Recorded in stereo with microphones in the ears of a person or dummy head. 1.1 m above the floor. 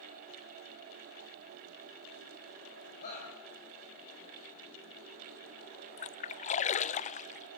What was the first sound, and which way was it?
A shout, 40° left (ahead or behind).